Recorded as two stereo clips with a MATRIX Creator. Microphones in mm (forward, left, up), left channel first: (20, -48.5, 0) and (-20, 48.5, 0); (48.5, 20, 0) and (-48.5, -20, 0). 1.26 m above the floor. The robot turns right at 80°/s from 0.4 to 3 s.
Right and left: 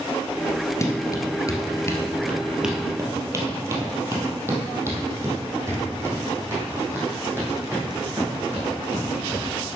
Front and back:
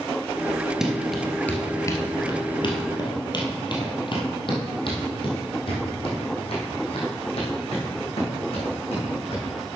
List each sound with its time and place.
0.8 s running footsteps: 75° right, 1.3 m; by 9.4 s 45° left, 5 m